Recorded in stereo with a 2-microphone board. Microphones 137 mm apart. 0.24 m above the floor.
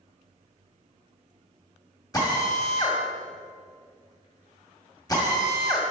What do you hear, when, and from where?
2.1 s a drill: 25° left (ahead or behind), 1.7 m